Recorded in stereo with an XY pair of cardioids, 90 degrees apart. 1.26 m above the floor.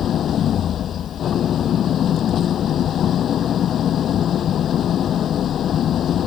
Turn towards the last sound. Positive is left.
turn(degrees=65)